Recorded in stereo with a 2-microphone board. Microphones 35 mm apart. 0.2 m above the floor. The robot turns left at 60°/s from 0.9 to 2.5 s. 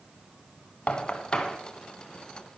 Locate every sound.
0.9 s knocking: 40° left (ahead or behind), 1.1 m; by 1.6 s 15° left (ahead or behind), 1.1 m